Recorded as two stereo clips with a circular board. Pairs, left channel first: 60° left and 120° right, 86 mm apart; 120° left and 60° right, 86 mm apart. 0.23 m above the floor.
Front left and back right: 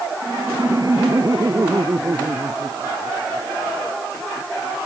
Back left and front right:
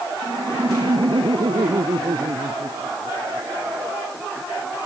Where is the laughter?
75° right.